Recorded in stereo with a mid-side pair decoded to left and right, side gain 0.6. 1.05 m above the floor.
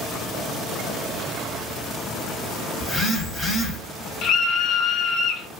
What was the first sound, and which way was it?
A phone buzzing, 10° left.